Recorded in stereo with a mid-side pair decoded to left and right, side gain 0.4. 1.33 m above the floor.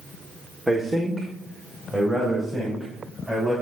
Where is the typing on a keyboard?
I don't hear typing on a keyboard.